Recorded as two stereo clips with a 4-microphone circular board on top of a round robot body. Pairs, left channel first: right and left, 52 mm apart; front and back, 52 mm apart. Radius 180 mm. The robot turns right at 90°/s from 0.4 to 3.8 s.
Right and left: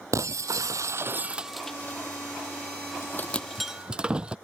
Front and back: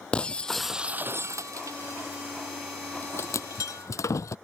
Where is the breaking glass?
70° left; by 4.3 s 20° left.